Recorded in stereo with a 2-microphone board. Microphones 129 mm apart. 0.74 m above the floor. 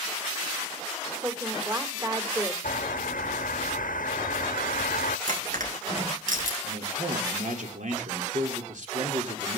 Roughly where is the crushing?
Right.